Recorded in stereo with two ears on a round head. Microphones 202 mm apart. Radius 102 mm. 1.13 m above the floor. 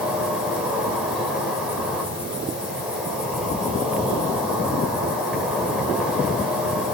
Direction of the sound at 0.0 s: 5° right (ahead or behind).